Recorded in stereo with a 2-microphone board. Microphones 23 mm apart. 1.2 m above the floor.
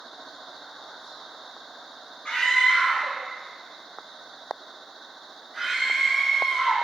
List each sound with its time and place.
2.2 s a scream: 55° left (ahead or behind), 1.0 m; by 6.7 s 10° right (ahead or behind), 1.7 m